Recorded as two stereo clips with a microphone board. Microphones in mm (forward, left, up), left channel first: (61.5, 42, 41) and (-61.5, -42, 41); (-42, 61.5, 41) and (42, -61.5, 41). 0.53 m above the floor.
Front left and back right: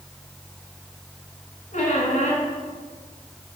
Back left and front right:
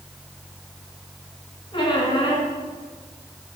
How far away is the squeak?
About 1.7 m.